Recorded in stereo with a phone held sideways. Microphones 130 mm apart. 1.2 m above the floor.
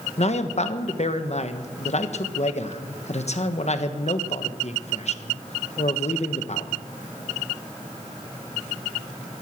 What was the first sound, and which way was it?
A man speaking, 55° left (ahead or behind).